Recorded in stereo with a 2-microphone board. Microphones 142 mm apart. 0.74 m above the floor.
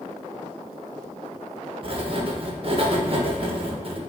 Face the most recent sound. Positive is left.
turn(degrees=-45)  # may be behind; listen again after turning